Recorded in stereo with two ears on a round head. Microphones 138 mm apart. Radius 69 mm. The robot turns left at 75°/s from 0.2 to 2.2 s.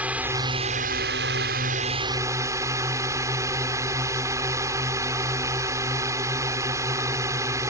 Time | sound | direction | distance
0.0 | a drone | 10° right | ?